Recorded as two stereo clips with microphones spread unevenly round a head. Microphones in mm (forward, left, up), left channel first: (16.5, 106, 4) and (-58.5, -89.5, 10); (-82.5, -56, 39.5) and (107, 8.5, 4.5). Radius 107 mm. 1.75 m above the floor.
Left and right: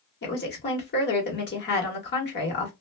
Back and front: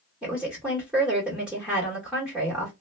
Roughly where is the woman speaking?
Left.